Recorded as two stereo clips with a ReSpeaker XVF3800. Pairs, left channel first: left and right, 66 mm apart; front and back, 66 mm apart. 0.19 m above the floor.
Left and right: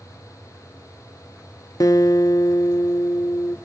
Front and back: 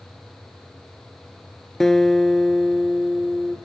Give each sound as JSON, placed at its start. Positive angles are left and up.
{"t": 1.8, "sound": "a guitar", "azimuth_deg": 85, "distance_m": 0.7}